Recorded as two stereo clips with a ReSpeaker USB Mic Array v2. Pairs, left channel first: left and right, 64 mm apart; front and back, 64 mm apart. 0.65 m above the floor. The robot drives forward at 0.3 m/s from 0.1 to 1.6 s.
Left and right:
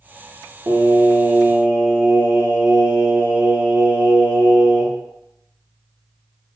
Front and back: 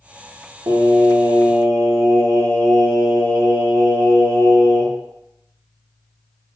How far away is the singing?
About 0.6 m.